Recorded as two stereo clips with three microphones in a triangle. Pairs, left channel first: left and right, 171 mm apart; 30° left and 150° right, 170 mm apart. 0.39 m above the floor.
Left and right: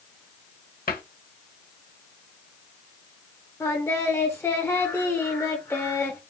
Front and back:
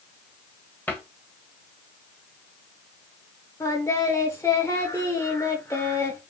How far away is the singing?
About 1.1 m.